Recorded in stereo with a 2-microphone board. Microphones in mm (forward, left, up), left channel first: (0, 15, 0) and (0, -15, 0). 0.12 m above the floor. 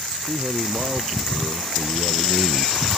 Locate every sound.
0.3 s a man speaking: 45° right (ahead or behind); by 2.8 s 35° right (ahead or behind)